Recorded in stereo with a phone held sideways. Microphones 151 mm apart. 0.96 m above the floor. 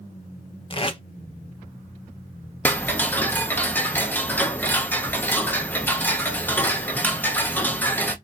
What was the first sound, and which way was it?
Tape being pulled, 35° left (ahead or behind).